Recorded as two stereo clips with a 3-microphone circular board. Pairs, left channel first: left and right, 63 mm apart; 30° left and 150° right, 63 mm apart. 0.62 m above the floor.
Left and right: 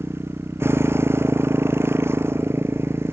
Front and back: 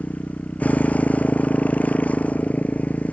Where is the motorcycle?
40° right.